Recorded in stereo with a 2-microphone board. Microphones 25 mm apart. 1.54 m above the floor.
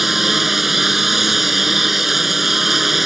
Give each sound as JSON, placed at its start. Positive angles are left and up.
{"t": 0.0, "sound": "a lawn mower", "side_deg": -10}